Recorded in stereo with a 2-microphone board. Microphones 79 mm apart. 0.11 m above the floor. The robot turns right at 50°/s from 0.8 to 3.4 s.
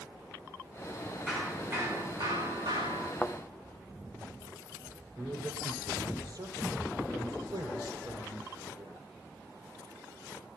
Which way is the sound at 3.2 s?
10° left (ahead or behind).